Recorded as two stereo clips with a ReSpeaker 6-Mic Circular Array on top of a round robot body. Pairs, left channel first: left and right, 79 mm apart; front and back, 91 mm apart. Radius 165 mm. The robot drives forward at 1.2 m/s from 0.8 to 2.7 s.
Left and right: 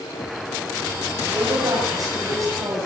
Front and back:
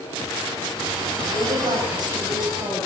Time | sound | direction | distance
1.3 | a woman speaking | 130° right | 6.5 m